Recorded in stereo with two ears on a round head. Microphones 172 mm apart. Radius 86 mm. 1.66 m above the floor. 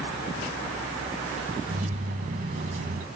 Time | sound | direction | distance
1.7 | keys jangling | 40° right (ahead or behind) | 1.0 m